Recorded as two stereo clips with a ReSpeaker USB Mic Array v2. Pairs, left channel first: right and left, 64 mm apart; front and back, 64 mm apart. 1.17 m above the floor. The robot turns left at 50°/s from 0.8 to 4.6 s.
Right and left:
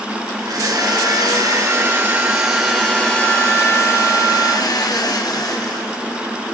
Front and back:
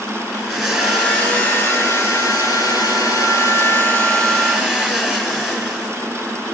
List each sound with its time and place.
0.4 s a blender: 90° left, 3.5 m; by 6.0 s 100° right, 3.5 m